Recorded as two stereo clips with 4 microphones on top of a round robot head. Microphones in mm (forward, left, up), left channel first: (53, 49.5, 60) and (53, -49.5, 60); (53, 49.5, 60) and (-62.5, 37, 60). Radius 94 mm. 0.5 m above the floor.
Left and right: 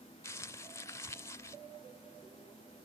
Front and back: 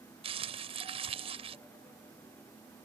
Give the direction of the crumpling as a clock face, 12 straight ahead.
7 o'clock.